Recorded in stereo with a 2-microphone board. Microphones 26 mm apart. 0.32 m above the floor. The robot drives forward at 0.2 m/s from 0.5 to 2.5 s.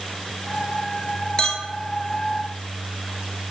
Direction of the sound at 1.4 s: 30° left (ahead or behind).